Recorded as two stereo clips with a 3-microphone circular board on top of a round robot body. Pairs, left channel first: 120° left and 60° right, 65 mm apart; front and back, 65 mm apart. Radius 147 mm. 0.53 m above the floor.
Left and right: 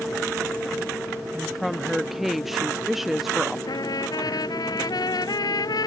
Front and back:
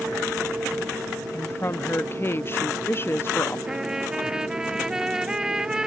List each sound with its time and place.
1.3 s a woman speaking: 25° left
3.7 s a trumpet: 100° left